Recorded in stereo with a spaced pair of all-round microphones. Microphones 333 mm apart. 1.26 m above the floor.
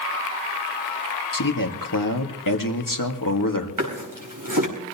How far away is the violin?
I don't hear a violin.